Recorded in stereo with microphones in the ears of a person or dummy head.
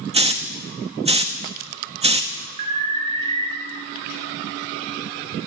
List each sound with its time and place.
0.1 s a hiss: 30° right (ahead or behind), 0.6 m
2.6 s an alarm: 35° right (ahead or behind), 1.8 m